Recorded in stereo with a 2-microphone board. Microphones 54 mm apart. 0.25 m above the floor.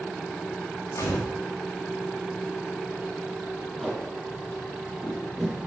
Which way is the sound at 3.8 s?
Centre (ahead or behind).